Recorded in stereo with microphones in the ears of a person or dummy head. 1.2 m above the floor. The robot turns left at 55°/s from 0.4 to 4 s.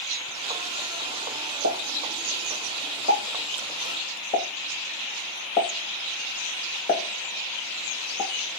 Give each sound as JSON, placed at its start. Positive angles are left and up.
{"t": 1.6, "sound": "a pop", "side_deg": -65, "distance_m": 1.7}